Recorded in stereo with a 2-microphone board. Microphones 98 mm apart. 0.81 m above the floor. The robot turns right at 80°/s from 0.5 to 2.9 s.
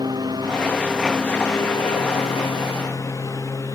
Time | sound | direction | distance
0.0 | a lawn mower | 45° right | ?